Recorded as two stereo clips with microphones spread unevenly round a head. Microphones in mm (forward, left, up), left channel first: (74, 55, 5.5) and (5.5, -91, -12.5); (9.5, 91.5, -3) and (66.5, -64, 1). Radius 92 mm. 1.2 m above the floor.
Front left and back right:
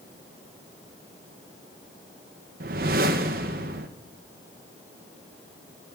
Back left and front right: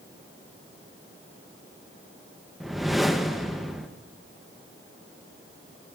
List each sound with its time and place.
2.6 s a whoosh: 160° right, 0.6 m